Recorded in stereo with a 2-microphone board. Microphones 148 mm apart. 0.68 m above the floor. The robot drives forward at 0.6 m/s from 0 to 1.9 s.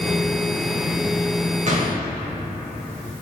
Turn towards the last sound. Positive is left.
turn(degrees=-45)  # may be behind; listen again after turning